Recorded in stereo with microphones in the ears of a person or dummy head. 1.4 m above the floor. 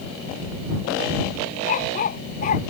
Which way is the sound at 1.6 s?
45° left (ahead or behind).